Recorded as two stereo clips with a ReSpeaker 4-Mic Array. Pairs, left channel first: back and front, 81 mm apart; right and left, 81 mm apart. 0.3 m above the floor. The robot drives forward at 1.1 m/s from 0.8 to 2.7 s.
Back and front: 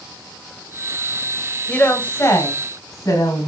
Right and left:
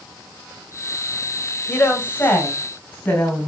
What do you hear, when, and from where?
1.7 s a woman speaking: 120° right, 1.6 m; by 3.5 s 155° right, 2 m